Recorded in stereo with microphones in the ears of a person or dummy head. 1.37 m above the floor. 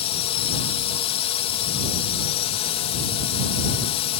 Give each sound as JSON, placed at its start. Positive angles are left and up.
{"t": 0.0, "sound": "a drone", "side_deg": 35}